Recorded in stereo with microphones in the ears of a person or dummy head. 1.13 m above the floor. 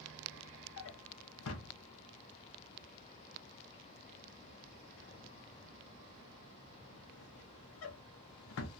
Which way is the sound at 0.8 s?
70° left (ahead or behind).